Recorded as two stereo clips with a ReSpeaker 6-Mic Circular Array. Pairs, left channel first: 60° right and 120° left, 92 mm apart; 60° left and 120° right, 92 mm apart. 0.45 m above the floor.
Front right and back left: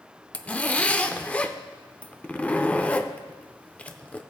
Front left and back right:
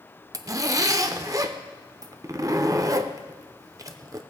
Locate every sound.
0.3 s a zipper: 125° right, 0.6 m